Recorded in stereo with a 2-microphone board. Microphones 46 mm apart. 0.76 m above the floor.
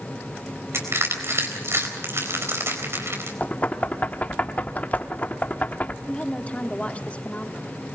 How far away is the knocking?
About 1.1 m.